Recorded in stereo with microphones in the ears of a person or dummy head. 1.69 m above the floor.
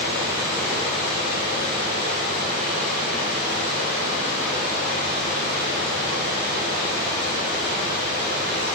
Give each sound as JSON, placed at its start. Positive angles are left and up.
{"t": 0.0, "sound": "running water", "side_deg": 60, "distance_m": 2.0}